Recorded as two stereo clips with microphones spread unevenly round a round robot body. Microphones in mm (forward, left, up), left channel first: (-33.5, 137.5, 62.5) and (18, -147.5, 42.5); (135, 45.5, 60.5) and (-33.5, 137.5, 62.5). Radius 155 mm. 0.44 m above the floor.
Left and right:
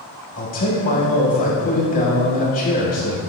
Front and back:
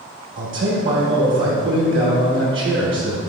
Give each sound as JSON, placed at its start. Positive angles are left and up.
{"t": 0.4, "sound": "a man speaking", "azimuth_deg": 160, "distance_m": 3.0}